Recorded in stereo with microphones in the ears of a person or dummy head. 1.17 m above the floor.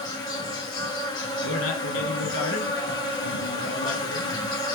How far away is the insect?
About 0.7 m.